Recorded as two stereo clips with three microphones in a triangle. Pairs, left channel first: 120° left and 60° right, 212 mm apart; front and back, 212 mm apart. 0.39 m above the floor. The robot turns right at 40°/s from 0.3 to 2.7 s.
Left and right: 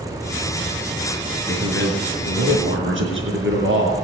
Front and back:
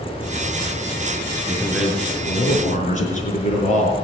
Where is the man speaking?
100° right, 4.5 m; by 3.9 s 50° right, 4.5 m.